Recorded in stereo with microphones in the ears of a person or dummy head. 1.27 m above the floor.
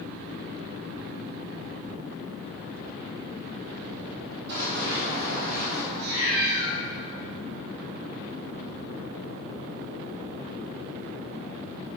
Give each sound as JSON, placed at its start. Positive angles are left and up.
{"t": 4.5, "sound": "running footsteps", "side_deg": -55, "distance_m": 2.5}
{"t": 5.9, "sound": "a cat meowing", "side_deg": -60, "distance_m": 2.5}